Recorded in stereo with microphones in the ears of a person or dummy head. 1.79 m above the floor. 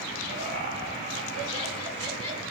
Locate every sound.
0.3 s laughter: 55° right (ahead or behind), 2.5 m; by 2.4 s 40° right (ahead or behind), 4 m